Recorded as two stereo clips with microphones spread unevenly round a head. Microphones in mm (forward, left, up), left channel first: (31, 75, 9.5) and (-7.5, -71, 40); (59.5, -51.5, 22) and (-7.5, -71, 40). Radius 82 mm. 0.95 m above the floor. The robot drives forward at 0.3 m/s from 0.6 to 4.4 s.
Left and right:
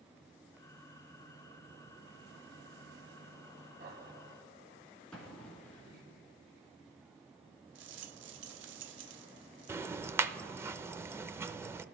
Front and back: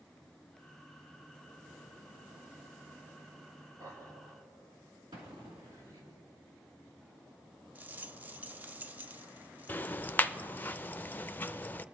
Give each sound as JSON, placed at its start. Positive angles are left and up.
{"t": 3.8, "sound": "laughter", "azimuth_deg": -135, "distance_m": 6.0}
{"t": 5.1, "sound": "an explosion", "azimuth_deg": 165, "distance_m": 1.8}
{"t": 7.8, "sound": "a rattle", "azimuth_deg": -100, "distance_m": 0.8}
{"t": 9.7, "sound": "ticking", "azimuth_deg": -25, "distance_m": 0.5}